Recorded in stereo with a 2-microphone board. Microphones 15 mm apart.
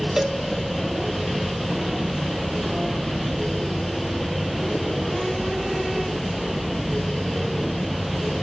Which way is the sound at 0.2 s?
35° right (ahead or behind).